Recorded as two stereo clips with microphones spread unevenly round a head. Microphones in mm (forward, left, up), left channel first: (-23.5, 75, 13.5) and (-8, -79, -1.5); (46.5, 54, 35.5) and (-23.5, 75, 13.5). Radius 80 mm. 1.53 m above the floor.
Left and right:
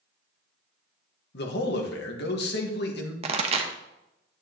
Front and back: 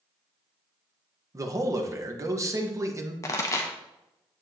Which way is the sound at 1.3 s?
115° left.